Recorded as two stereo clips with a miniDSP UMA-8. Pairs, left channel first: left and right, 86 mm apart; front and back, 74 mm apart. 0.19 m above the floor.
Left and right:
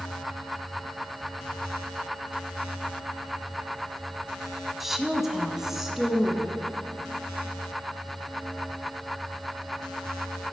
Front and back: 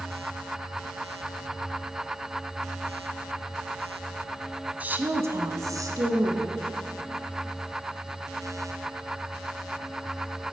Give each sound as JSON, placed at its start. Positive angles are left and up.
{"t": 4.8, "sound": "a woman speaking", "azimuth_deg": -170, "distance_m": 1.0}